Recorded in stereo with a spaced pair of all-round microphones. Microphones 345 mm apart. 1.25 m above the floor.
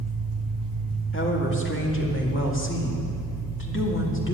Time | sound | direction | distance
0.0 | an engine running | 80° right | 2 m
1.1 | a woman speaking | 35° left (ahead or behind) | 2 m